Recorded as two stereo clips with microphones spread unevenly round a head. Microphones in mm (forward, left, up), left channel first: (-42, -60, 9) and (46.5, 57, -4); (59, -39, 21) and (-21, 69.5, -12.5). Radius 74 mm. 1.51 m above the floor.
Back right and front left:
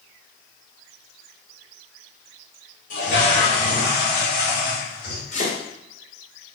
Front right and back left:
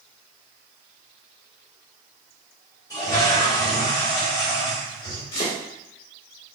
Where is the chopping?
95° right, 2 m.